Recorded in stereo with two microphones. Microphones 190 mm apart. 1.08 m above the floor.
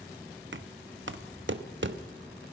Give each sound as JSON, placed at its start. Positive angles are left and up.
{"t": 0.5, "sound": "knocking", "side_deg": -80, "distance_m": 1.0}